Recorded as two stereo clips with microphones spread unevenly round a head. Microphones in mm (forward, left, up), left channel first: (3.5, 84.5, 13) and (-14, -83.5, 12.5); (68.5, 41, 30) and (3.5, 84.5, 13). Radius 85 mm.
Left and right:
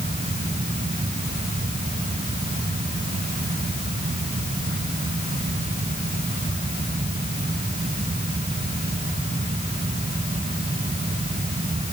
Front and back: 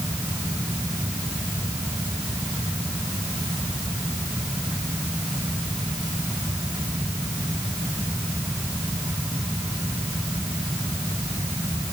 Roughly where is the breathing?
I don't hear breathing.